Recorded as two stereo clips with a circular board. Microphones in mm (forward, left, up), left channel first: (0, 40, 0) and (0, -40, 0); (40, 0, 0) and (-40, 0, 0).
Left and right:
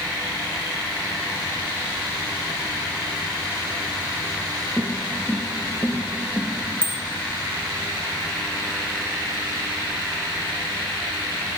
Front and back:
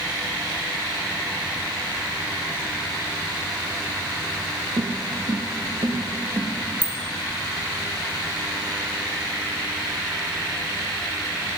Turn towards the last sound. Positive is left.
turn(degrees=-150)